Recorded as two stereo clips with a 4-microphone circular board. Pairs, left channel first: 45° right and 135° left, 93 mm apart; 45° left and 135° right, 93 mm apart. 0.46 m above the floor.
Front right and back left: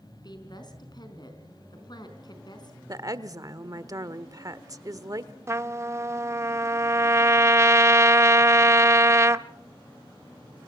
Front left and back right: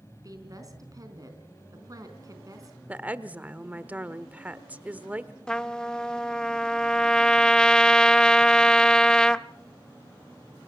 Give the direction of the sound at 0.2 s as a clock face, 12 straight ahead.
3 o'clock.